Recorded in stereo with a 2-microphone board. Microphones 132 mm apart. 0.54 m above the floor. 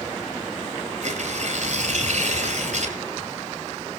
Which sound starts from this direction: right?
Tearing paper, at 1.0 s.